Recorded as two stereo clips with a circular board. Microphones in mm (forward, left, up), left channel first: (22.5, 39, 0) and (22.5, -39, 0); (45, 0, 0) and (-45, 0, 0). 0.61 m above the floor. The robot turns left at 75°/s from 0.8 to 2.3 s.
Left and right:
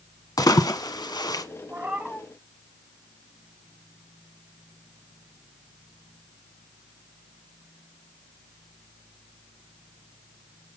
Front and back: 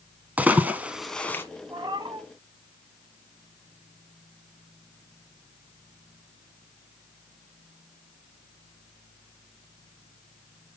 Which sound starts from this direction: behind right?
A cat meowing, at 1.7 s.